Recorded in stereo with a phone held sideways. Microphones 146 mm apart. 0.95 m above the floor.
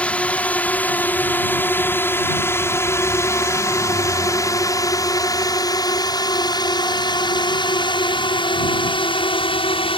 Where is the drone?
10° left (ahead or behind); by 10.0 s 40° left (ahead or behind).